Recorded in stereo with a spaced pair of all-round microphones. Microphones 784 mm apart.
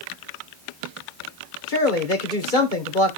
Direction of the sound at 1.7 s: 80° left.